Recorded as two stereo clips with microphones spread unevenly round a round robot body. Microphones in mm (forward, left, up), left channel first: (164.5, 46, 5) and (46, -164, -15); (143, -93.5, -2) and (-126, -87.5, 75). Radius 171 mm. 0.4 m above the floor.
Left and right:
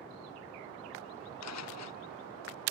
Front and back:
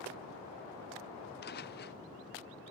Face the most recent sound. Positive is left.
turn(degrees=60)